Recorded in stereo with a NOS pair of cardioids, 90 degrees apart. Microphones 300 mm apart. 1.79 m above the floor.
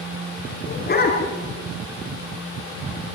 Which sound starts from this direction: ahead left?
A dog barking, at 0.7 s.